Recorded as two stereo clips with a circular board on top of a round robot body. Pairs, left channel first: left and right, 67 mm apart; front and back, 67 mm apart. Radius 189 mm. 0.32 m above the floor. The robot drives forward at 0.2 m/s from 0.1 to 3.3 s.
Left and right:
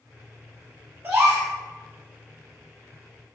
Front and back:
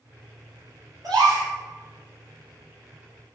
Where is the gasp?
150° right, 3 m.